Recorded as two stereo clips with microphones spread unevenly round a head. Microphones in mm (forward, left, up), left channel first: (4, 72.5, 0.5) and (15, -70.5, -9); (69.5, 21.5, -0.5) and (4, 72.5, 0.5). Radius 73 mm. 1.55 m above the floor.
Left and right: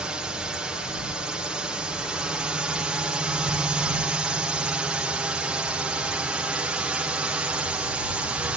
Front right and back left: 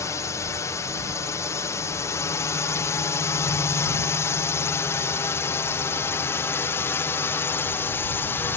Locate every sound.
0.0 s a drone: 5° right; by 8.6 s 15° right